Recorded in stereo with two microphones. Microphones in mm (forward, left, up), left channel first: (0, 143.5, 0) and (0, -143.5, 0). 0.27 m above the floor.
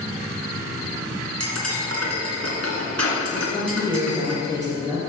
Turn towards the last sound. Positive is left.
turn(degrees=-10)  # may be behind; listen again after turning